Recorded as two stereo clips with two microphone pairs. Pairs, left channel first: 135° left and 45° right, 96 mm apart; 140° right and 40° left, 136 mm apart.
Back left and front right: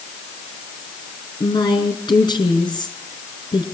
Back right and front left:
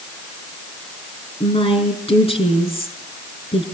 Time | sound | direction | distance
1.4 | a woman speaking | straight behind | 4.5 m